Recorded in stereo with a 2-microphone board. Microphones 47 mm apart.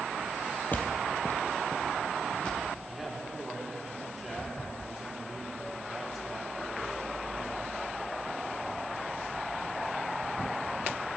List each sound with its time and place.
0.7 s footsteps: 40° left (ahead or behind), 1.1 m; by 2.7 s 25° left (ahead or behind), 3 m
2.9 s a man speaking: 10° right (ahead or behind), 2.5 m